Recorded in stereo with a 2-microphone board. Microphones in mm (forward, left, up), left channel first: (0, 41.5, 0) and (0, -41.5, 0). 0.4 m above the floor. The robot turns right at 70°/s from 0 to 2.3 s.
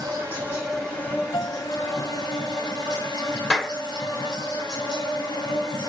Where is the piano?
55° left (ahead or behind), 1.9 m; by 1.7 s 70° left (ahead or behind), 1.9 m.